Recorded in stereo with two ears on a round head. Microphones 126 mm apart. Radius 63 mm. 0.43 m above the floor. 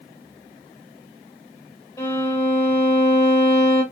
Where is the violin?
25° left (ahead or behind), 1.0 m.